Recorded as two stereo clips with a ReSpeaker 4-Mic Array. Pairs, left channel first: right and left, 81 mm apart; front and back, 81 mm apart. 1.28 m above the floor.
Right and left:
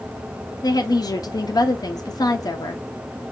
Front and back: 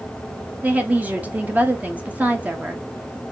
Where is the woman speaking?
115° right, 0.5 m.